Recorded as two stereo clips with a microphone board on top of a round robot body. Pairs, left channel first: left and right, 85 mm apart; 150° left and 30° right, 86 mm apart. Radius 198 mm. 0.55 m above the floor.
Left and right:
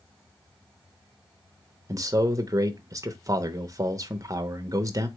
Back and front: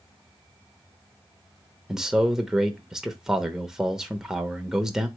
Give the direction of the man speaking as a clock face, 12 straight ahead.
4 o'clock.